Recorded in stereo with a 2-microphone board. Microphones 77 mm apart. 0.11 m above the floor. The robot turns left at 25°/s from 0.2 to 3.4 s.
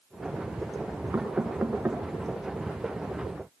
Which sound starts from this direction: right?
Knocking, at 1.1 s.